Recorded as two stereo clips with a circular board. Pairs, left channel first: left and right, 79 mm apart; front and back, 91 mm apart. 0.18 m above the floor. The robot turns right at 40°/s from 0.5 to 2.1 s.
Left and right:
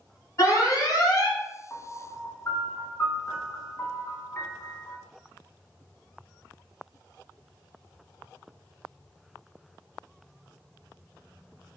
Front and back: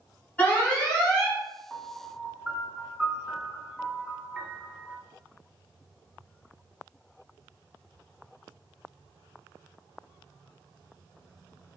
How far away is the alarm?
About 1.7 m.